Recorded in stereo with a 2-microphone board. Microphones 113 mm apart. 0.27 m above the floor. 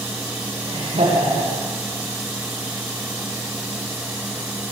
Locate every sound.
0.7 s laughter: 80° right, 9 m